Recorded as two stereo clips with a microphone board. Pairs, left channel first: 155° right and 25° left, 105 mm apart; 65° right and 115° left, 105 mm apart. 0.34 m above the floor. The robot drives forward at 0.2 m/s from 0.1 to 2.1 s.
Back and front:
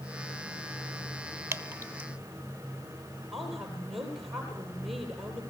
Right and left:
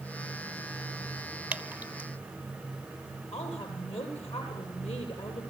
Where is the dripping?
50° left, 0.8 m; by 2.1 s 65° left, 0.8 m.